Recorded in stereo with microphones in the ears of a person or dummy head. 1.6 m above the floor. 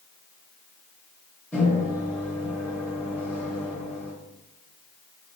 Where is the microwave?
10° left (ahead or behind), 0.8 m.